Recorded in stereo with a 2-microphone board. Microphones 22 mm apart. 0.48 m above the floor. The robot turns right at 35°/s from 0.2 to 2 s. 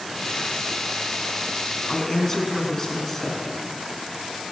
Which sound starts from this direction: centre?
A woman speaking, at 1.9 s.